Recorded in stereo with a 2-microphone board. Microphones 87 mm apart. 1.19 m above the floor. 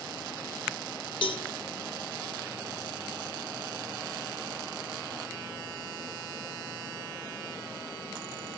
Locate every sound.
1.2 s a cowbell: 80° left, 3 m